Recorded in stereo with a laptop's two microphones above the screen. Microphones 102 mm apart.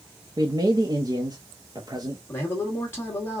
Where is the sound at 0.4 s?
40° right (ahead or behind), 0.7 m.